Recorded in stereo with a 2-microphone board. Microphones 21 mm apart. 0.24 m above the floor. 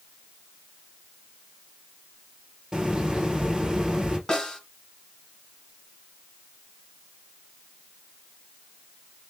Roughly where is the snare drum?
Left.